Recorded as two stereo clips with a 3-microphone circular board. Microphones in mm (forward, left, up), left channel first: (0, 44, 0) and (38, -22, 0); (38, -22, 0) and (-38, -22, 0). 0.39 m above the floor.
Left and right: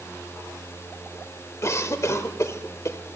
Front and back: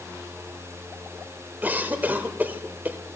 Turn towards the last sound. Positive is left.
turn(degrees=130)